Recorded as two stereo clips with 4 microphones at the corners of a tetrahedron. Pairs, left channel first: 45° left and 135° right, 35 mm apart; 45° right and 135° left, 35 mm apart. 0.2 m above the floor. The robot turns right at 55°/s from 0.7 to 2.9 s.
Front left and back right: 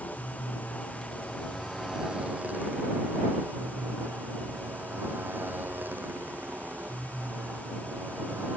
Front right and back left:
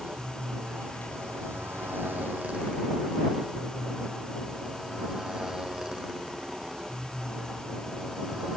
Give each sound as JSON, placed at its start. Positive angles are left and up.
{"t": 0.0, "sound": "a motorcycle", "azimuth_deg": 85}